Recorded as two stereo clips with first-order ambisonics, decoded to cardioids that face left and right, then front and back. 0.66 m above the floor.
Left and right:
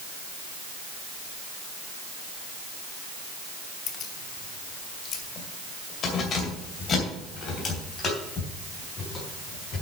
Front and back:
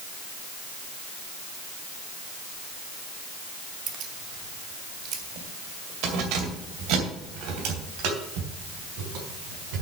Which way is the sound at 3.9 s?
135° left.